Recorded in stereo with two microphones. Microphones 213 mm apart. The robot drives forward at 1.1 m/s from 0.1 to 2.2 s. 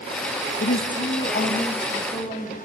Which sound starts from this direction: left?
A woman speaking, at 0.6 s.